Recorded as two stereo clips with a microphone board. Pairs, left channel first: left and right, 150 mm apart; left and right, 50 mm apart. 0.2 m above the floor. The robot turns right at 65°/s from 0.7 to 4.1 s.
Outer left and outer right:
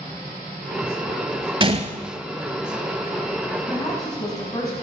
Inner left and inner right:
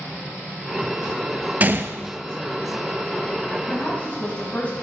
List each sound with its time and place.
1.6 s a gunshot: 30° right (ahead or behind), 0.5 m; by 2.0 s 55° right (ahead or behind), 0.5 m
3.7 s a woman speaking: 20° left (ahead or behind), 1.4 m; by 4.7 s 25° left (ahead or behind), 1.4 m